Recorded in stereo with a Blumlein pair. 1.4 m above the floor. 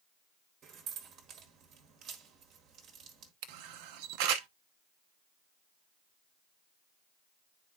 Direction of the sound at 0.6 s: 30° right.